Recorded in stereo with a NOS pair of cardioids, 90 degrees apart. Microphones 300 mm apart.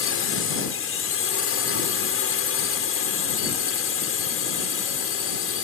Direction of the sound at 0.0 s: 50° left.